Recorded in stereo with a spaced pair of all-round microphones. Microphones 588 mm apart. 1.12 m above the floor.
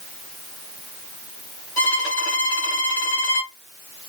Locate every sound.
1.8 s a violin: 55° left (ahead or behind), 1.9 m